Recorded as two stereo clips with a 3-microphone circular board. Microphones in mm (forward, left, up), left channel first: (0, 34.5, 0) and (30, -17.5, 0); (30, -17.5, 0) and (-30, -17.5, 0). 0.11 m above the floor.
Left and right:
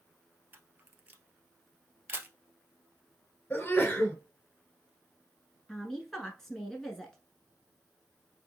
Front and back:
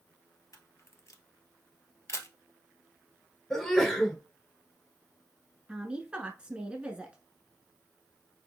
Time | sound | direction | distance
0.5 | a camera shutter | 10° right | 1.0 m
3.5 | a sneeze | 80° left | 1.4 m
5.7 | a woman speaking | 170° right | 1.0 m